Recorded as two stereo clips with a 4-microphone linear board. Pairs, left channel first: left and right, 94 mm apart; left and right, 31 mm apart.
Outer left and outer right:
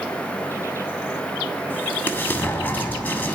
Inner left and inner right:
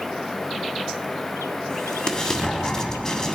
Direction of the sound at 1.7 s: 20° left (ahead or behind).